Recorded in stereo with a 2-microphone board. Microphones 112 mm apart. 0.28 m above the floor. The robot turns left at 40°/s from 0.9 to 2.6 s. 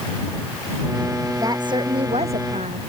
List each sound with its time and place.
1.4 s a woman speaking: 30° right; by 2.8 s 80° right